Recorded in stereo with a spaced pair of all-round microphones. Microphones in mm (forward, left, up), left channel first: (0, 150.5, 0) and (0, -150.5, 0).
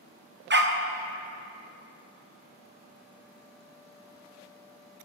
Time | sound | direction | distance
0.5 | a dog barking | 35° right (ahead or behind) | 0.6 m